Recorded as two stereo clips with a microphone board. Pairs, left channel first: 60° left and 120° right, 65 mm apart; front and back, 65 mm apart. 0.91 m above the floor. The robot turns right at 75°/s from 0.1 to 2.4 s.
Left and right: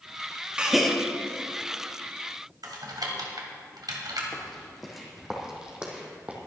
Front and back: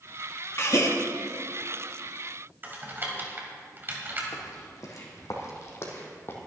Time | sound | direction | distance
0.6 | a gasp | 45° right | 1.4 m
2.6 | typing on a keyboard | 125° right | 2.5 m
4.3 | footsteps | 25° right | 3.5 m